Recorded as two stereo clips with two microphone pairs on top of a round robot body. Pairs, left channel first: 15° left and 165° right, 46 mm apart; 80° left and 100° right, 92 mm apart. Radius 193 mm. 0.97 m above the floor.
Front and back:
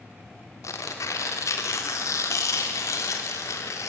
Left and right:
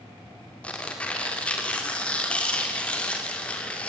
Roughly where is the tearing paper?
Ahead.